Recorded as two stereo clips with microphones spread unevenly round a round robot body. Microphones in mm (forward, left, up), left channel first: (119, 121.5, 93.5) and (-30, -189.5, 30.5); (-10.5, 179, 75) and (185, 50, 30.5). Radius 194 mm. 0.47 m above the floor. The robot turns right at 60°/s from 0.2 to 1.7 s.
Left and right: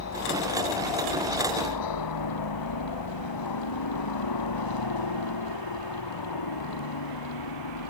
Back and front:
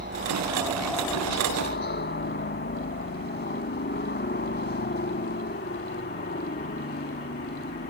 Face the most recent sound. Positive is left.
turn(degrees=100)